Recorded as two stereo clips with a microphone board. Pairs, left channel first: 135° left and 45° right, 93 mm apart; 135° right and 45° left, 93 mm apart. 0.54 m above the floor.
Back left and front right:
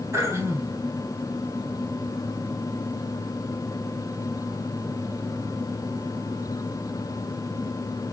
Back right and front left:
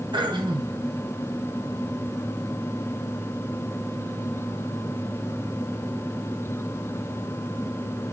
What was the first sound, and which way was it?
Throat clearing, 15° left.